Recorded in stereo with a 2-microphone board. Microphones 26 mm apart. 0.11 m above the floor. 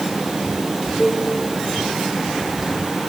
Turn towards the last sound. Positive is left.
turn(degrees=0)  # may be behind; listen again after turning